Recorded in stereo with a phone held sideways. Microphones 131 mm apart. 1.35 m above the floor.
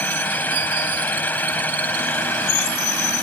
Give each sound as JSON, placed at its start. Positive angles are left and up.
{"t": 0.0, "sound": "a fan", "side_deg": 15}